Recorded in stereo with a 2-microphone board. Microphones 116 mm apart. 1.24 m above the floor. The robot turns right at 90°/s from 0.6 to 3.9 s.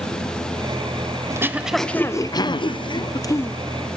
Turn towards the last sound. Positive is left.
turn(degrees=-165)